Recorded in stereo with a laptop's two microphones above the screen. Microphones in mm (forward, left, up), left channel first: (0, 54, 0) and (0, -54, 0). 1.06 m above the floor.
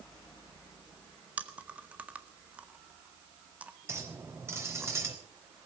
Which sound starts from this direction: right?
A clink, at 3.9 s.